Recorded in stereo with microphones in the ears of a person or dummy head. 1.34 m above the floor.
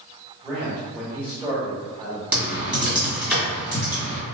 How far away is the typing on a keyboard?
About 1.8 m.